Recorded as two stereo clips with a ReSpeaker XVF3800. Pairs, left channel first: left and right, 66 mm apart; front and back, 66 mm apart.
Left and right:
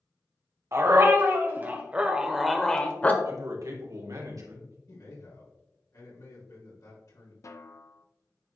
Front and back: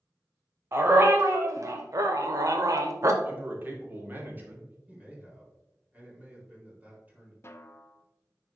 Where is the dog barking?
130° right, 1.4 m; by 3.1 s 150° left, 0.9 m.